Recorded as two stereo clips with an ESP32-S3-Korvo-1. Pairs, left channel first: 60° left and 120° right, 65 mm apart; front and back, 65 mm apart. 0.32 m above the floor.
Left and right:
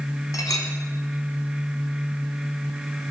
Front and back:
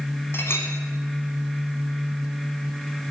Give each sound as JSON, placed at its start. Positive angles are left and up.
{"t": 0.3, "sound": "a clink", "azimuth_deg": 50, "distance_m": 1.3}